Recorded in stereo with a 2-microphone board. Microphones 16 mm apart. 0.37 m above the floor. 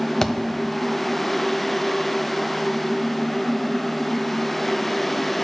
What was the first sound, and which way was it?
A thud, 30° left (ahead or behind).